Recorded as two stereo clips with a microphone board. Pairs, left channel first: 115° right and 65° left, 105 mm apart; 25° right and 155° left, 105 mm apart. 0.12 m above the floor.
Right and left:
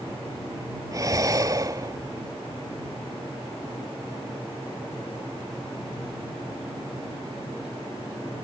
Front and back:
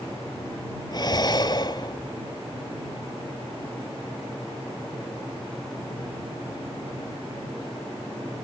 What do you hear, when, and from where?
0.9 s breathing: 15° left